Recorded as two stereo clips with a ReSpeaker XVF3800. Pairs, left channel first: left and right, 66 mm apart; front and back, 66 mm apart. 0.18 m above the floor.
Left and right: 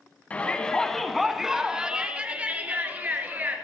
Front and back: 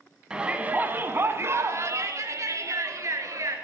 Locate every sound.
0.3 s a shout: 120° left, 1.0 m; by 3.5 s 150° right, 2.5 m